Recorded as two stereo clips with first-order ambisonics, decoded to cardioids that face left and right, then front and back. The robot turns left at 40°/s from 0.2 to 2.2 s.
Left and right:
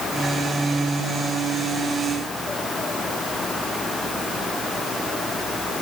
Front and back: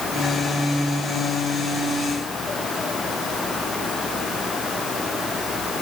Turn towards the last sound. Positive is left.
No sound to turn to.